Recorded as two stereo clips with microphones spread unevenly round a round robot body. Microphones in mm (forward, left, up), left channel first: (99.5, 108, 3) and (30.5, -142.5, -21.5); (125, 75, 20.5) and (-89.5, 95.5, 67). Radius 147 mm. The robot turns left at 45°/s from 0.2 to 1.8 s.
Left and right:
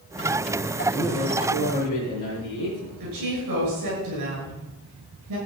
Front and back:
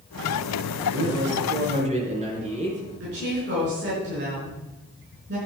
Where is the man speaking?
155° left, 5 m; by 2.9 s 115° left, 5 m.